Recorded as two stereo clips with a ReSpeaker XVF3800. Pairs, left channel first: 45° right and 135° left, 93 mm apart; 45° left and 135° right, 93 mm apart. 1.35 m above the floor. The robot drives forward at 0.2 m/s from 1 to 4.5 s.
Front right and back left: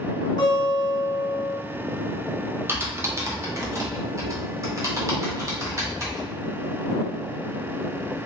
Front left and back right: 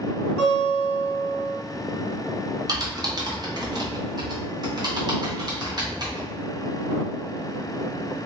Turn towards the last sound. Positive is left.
turn(degrees=-175)